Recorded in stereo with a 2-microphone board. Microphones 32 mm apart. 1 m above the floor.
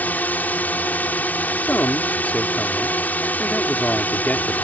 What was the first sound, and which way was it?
A drone, 65° left (ahead or behind).